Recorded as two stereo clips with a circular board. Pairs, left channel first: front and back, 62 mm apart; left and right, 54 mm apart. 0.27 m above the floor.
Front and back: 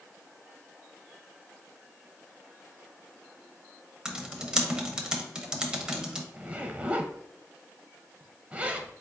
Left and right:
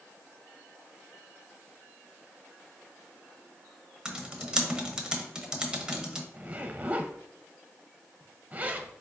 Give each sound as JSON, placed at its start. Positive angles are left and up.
{"t": 4.0, "sound": "typing on a keyboard", "azimuth_deg": -125, "distance_m": 0.6}
{"t": 6.3, "sound": "a zipper", "azimuth_deg": -125, "distance_m": 0.5}